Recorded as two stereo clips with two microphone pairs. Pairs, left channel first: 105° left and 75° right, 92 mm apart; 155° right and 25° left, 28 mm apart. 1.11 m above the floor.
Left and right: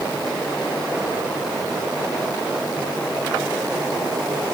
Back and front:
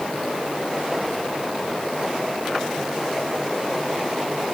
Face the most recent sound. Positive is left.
No sound to turn to.